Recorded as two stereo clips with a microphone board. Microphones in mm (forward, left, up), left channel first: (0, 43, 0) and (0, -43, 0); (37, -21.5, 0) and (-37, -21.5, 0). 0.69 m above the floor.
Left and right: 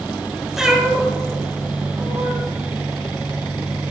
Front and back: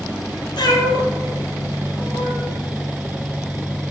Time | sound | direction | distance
0.6 | a cat meowing | 5° right | 1.3 m